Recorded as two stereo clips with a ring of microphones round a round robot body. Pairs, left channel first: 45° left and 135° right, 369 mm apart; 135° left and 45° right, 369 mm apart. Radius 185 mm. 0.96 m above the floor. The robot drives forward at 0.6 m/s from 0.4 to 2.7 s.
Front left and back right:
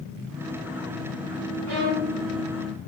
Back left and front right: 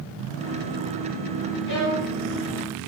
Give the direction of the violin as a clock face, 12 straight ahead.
6 o'clock.